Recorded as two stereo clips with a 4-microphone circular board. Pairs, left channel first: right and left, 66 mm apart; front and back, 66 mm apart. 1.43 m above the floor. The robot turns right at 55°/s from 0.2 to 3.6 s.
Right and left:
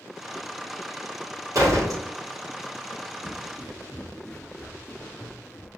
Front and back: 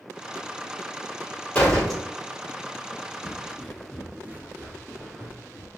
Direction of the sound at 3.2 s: 20° left.